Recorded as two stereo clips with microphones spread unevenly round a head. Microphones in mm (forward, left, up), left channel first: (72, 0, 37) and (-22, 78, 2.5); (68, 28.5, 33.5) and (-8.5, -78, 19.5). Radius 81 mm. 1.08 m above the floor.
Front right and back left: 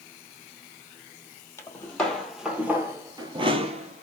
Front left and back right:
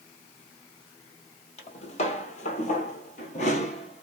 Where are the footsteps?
25° left, 2 m; by 4.0 s 105° left, 1.8 m.